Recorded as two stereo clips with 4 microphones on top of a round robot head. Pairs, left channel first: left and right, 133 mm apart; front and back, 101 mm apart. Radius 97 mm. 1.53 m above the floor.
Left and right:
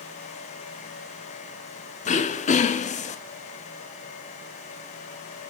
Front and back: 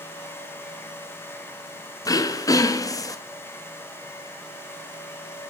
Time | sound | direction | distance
2.0 | throat clearing | 60° left | 0.6 m